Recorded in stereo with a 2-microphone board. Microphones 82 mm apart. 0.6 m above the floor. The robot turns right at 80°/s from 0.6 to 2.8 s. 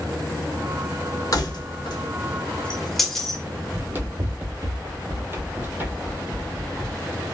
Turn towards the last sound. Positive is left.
turn(degrees=-15)  # may be behind; listen again after turning